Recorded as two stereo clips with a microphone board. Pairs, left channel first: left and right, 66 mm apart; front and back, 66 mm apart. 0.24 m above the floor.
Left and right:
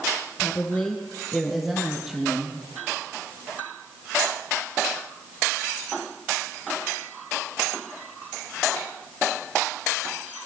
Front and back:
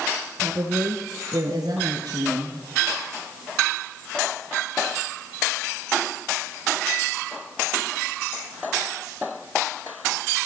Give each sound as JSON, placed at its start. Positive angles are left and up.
{"t": 0.4, "sound": "a woman speaking", "azimuth_deg": 145, "distance_m": 3.0}